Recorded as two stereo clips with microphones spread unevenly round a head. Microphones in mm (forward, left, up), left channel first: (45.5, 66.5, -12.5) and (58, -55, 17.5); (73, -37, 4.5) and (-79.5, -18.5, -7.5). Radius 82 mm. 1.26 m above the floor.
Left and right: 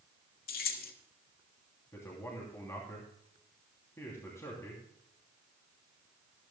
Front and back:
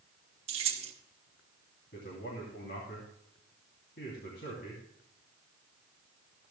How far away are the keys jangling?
About 1.3 m.